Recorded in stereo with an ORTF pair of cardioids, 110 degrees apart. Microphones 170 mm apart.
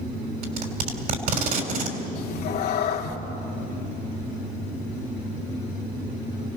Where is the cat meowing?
70° left, 2 m.